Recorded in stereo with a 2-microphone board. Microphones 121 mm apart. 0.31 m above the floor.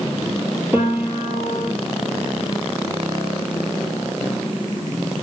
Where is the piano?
15° right (ahead or behind), 2.5 m.